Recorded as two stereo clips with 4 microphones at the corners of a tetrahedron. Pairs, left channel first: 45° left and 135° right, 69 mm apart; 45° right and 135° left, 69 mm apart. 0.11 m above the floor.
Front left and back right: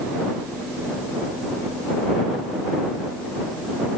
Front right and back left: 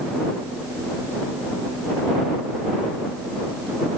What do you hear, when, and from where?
Only background noise.